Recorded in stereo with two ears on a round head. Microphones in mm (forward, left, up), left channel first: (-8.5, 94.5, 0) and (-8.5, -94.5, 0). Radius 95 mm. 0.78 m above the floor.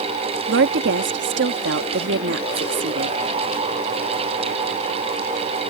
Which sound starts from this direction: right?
A woman speaking, at 0.5 s.